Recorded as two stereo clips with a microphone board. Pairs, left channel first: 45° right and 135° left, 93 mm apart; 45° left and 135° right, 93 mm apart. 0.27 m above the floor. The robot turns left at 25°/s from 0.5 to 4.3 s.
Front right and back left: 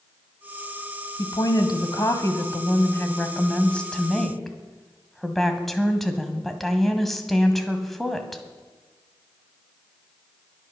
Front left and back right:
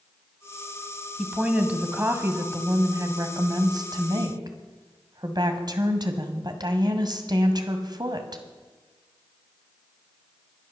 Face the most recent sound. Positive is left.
turn(degrees=-130)